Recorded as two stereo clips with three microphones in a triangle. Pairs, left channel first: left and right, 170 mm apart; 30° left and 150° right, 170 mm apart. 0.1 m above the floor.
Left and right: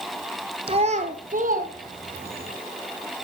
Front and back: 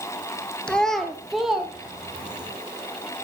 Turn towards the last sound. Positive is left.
turn(degrees=-65)